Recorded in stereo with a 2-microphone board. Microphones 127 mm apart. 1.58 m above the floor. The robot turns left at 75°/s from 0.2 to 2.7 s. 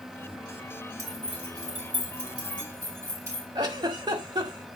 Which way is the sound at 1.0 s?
25° right (ahead or behind).